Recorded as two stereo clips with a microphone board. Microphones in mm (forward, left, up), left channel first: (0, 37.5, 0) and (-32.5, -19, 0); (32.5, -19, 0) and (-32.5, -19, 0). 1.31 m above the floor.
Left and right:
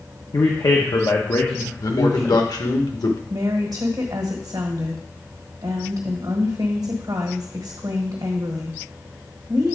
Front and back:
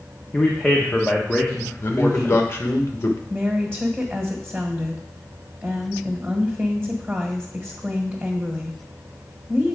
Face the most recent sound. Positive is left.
turn(degrees=-120)